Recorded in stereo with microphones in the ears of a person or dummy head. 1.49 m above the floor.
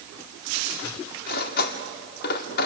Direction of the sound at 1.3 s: 60° left (ahead or behind).